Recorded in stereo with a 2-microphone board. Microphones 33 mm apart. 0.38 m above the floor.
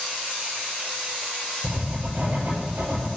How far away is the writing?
About 4.5 m.